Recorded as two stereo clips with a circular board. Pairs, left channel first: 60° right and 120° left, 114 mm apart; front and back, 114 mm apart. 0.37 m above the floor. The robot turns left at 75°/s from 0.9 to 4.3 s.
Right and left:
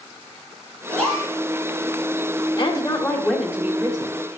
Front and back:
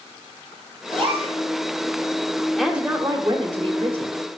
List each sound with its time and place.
0.9 s a gasp: 135° right, 4 m; by 1.3 s 170° right, 4 m
2.6 s a woman speaking: 85° right, 1.3 m; by 4.1 s 155° left, 1.3 m